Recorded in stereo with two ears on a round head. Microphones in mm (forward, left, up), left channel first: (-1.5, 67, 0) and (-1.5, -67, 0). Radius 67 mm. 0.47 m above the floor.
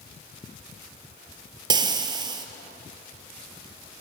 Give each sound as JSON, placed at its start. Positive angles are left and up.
{"t": 1.7, "sound": "frying", "side_deg": -30, "distance_m": 1.7}